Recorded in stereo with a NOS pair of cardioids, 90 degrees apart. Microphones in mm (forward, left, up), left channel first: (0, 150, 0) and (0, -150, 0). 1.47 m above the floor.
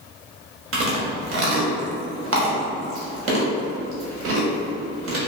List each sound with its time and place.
0.7 s chewing: 50° right, 1.0 m